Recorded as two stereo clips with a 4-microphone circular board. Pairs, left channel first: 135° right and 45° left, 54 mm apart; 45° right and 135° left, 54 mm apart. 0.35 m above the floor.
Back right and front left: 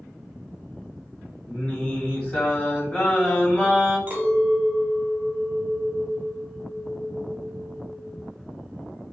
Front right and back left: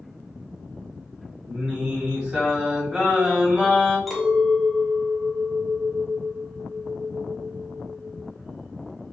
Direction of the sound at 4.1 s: 45° left.